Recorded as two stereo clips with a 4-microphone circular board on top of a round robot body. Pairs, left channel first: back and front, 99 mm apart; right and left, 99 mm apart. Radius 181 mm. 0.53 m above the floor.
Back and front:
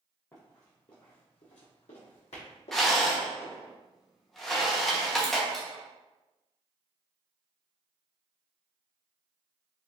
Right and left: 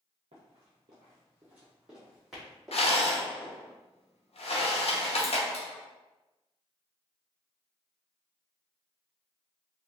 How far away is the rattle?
About 0.9 m.